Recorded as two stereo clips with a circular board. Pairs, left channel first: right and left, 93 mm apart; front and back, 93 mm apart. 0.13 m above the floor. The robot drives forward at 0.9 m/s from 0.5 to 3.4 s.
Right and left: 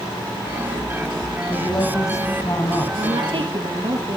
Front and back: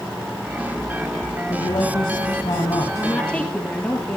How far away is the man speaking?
About 6 m.